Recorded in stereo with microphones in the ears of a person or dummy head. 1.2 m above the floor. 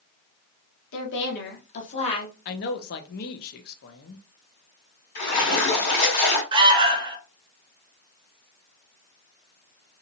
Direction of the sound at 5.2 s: 55° left (ahead or behind).